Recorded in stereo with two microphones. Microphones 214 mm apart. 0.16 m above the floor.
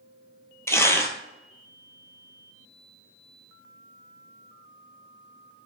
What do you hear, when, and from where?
0.7 s tearing paper: 15° left (ahead or behind), 0.5 m